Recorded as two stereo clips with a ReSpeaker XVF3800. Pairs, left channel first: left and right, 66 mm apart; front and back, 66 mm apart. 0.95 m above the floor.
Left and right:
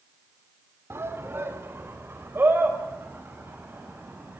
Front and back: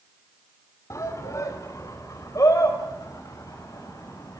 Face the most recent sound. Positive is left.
turn(degrees=-30)